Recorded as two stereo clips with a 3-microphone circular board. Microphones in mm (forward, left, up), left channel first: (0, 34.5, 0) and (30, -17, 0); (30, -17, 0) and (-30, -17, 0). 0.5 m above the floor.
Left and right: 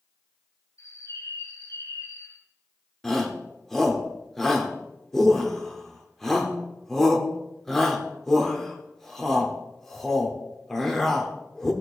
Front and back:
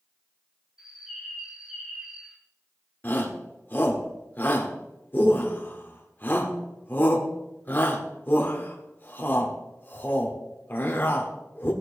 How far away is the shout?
About 1.4 m.